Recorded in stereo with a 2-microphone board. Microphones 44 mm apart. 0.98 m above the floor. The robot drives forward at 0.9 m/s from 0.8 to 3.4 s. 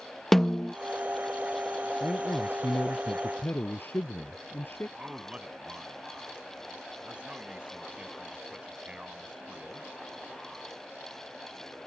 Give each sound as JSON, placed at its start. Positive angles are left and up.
{"t": 0.3, "sound": "a snare drum", "side_deg": 5}
{"t": 2.0, "sound": "a man speaking", "side_deg": 50}
{"t": 5.0, "sound": "a man speaking", "side_deg": -25}